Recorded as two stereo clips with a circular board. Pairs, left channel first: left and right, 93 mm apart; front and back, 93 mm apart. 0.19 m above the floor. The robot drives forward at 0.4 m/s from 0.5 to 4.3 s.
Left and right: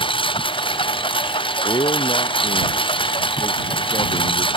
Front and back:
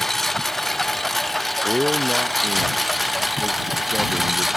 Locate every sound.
0.0 s a lawn mower: 85° left; by 4.6 s 90° left
1.6 s a man speaking: 100° left; by 4.5 s 105° left